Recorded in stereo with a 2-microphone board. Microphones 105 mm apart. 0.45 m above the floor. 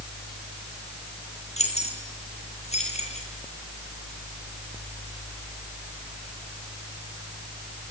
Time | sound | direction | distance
1.6 | keys jangling | 85° left | 7.5 m